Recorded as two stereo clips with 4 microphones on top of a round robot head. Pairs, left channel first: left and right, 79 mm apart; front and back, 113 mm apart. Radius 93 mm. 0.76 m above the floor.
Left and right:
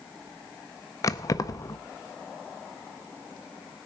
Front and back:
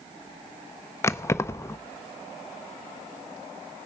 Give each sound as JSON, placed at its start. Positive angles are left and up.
{"t": 1.0, "sound": "keys jangling", "azimuth_deg": 60, "distance_m": 0.7}